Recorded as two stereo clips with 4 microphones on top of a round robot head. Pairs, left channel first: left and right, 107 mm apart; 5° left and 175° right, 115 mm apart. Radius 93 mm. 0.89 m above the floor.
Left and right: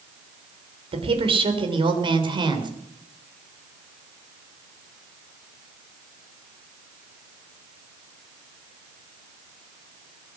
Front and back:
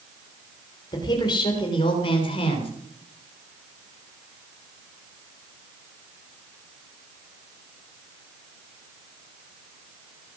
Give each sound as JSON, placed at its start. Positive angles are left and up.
{"t": 0.9, "sound": "a woman speaking", "azimuth_deg": -55, "distance_m": 3.5}